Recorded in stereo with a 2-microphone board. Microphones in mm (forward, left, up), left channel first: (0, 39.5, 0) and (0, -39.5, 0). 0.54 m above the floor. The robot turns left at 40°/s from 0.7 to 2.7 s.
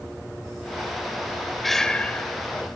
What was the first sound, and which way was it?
Breathing, centre (ahead or behind).